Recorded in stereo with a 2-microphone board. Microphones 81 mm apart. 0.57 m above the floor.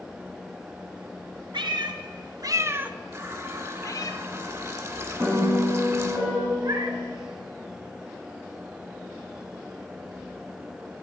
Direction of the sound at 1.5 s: 75° right (ahead or behind).